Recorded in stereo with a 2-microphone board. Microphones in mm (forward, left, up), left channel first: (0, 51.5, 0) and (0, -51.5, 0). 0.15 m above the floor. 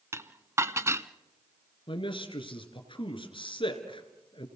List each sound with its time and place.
0.1 s dishes clattering: 25° right (ahead or behind), 0.8 m
1.9 s a man speaking: 50° left (ahead or behind), 2.5 m